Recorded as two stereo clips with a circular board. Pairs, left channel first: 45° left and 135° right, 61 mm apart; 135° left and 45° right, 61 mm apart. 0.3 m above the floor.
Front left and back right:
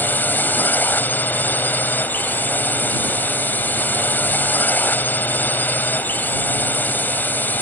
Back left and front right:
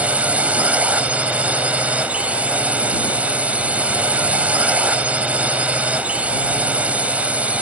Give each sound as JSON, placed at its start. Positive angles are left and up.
{"t": 0.0, "sound": "a drone", "azimuth_deg": 10}